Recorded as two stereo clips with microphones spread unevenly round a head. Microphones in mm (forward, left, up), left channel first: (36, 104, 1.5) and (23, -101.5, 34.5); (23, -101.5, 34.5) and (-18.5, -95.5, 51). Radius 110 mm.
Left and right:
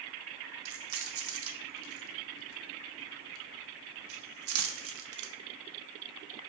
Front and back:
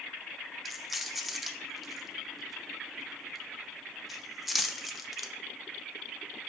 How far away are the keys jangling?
About 0.8 m.